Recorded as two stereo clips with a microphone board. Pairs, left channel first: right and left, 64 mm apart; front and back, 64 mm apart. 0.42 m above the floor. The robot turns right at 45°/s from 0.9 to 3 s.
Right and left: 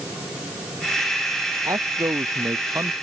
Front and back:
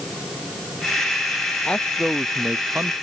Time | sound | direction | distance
1.6 | a man speaking | 70° left | ?